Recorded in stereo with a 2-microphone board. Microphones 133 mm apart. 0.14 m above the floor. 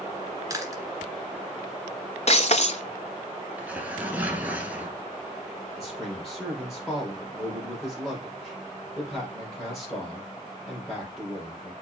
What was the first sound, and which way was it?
Chewing, 25° right (ahead or behind).